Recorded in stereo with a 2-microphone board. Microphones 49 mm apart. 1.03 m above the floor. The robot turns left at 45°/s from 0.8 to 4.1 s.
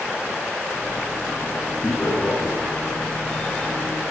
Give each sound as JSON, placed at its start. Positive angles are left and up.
{"t": 1.8, "sound": "laughter", "side_deg": 35, "distance_m": 10.0}